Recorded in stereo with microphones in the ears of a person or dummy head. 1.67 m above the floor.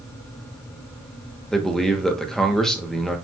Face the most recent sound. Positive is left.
turn(degrees=0)  # may be behind; listen again after turning